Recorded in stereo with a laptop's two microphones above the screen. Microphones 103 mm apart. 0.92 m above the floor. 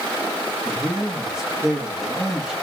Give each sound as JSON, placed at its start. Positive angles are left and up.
{"t": 0.7, "sound": "a man speaking", "side_deg": -5, "distance_m": 1.5}